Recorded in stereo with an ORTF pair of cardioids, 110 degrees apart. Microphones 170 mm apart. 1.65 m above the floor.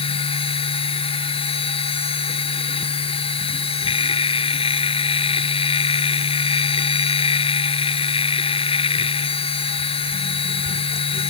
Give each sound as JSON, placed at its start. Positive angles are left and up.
{"t": 0.0, "sound": "a machine running", "azimuth_deg": 30}